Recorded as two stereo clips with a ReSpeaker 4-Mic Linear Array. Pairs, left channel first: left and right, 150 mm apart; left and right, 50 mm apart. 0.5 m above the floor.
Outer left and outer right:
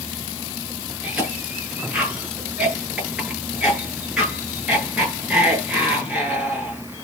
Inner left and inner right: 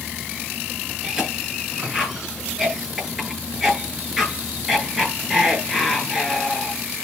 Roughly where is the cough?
Centre.